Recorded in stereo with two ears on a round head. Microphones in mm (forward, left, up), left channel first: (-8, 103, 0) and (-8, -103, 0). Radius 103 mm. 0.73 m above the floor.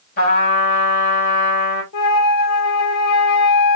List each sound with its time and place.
0.2 s a trumpet: 45° left (ahead or behind), 3.5 m
1.9 s a flute: 75° left (ahead or behind), 1.6 m